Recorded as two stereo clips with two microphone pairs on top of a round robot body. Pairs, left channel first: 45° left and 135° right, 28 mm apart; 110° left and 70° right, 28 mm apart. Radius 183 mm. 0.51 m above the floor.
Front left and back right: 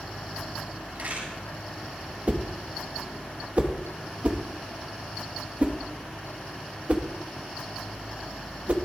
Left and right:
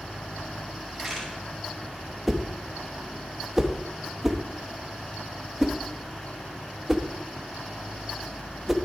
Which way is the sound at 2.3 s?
145° right.